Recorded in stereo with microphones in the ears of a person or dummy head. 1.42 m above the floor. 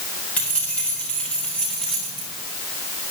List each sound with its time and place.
0.4 s keys jangling: 10° left (ahead or behind), 4 m; by 2.3 s centre (ahead or behind), 3 m